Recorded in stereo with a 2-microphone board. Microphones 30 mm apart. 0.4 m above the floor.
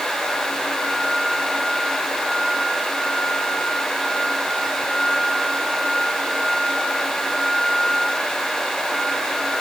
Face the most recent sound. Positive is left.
No sound to turn to.